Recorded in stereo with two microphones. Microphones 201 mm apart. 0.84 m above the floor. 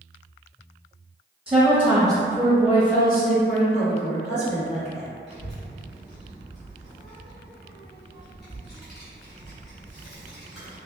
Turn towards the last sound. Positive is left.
turn(degrees=55)  # may be behind; listen again after turning